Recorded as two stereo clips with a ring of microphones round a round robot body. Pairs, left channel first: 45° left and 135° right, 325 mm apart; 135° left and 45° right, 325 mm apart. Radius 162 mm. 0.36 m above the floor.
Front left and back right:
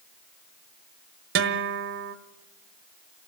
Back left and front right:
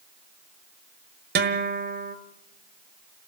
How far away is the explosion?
No explosion in this recording.